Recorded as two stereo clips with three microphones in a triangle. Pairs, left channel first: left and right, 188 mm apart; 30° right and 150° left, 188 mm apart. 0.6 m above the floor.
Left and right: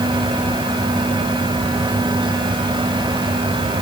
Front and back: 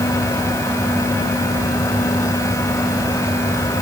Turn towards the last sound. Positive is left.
No sound to turn to.